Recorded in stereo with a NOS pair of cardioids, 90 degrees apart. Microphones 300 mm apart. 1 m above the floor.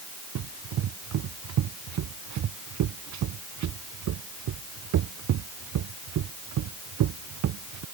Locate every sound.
0.3 s running footsteps: 65° right